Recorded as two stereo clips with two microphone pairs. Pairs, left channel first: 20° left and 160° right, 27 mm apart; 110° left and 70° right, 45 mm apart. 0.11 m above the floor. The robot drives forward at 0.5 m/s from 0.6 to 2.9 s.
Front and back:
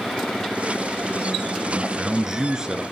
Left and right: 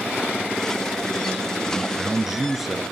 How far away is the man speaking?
About 1.4 m.